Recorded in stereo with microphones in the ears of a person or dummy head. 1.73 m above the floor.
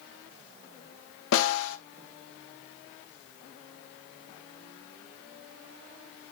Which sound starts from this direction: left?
A snare drum, at 1.3 s.